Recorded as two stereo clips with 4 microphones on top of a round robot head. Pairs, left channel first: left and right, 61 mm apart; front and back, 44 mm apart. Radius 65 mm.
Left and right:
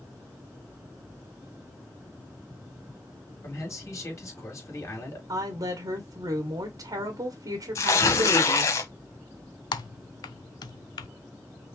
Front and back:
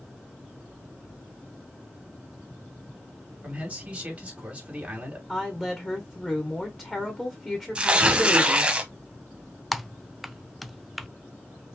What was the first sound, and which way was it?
A man speaking, 120° left.